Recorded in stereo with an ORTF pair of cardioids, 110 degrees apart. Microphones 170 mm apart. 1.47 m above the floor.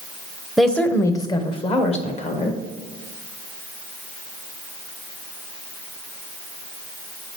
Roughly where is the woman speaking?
Ahead.